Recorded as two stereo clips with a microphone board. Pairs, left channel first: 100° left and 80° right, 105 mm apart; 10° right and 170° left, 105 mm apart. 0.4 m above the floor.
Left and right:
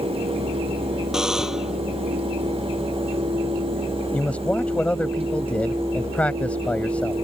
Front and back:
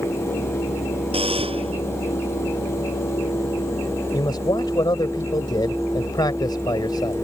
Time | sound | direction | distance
1.1 | a buzzer | 165° right | ?
4.1 | a man speaking | 25° left | ?